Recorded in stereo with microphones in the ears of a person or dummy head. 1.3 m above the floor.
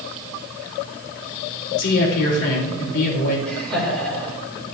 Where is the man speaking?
55° left (ahead or behind), 3.5 m.